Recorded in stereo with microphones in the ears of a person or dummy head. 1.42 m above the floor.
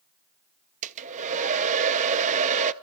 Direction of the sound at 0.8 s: 40° right (ahead or behind).